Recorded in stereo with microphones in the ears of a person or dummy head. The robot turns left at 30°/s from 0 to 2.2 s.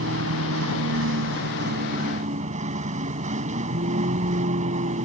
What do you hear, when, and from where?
0.0 s a vehicle: 70° right; by 5.0 s 135° right